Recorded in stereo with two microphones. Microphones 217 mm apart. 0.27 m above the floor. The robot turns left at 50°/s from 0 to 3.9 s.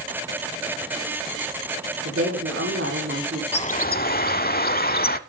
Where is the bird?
30° left (ahead or behind), 0.7 m; by 5.2 s 45° left (ahead or behind), 0.7 m.